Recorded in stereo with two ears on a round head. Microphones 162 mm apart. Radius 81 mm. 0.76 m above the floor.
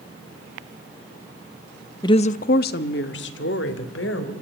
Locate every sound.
2.0 s a woman speaking: 20° left (ahead or behind), 0.6 m; by 4.3 s 80° left, 3 m